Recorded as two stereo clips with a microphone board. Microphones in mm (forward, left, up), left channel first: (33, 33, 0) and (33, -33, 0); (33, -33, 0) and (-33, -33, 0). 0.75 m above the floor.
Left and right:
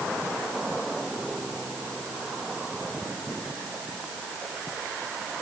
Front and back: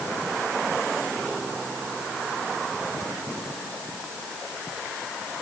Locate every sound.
Only background noise.